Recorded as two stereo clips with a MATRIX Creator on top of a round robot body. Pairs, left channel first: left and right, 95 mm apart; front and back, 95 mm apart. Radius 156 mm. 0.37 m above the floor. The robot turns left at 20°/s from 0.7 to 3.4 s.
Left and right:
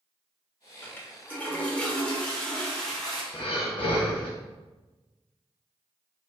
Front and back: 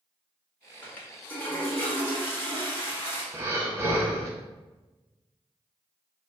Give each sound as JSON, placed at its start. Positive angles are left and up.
{"t": 0.8, "sound": "a toilet flushing", "azimuth_deg": 55, "distance_m": 1.3}
{"t": 3.3, "sound": "breathing", "azimuth_deg": 115, "distance_m": 0.8}